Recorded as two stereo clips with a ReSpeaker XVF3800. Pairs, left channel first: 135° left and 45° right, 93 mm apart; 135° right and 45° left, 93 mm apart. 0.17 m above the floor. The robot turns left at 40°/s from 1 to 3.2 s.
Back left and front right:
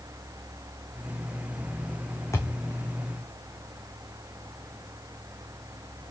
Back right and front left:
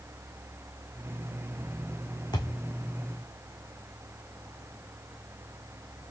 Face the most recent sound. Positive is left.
turn(degrees=155)